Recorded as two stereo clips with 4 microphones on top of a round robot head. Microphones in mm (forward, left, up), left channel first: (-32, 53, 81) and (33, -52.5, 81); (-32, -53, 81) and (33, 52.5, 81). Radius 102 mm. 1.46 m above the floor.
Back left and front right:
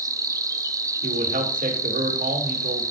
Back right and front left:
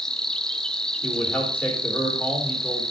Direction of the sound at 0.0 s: 40° right.